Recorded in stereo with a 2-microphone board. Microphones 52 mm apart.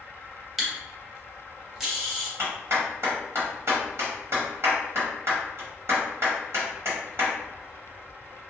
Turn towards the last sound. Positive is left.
turn(degrees=-55)  # may be behind; listen again after turning